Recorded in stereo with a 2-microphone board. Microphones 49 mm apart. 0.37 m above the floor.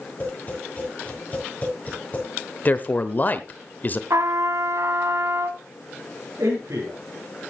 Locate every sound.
0.2 s tapping: 30° left (ahead or behind), 7 m
2.6 s a man speaking: 35° left (ahead or behind), 0.9 m
4.1 s a trumpet: 75° right (ahead or behind), 0.9 m
6.4 s a man speaking: 80° right, 6 m